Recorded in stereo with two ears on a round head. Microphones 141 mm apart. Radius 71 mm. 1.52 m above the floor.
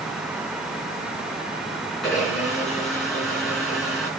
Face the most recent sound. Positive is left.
turn(degrees=0)  # may be behind; listen again after turning